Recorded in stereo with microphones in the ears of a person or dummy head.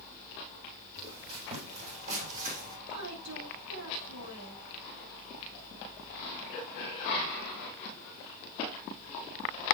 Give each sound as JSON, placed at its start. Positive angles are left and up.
{"t": 1.0, "sound": "footsteps", "side_deg": -30, "distance_m": 3.5}
{"t": 2.9, "sound": "a woman speaking", "side_deg": -85, "distance_m": 5.0}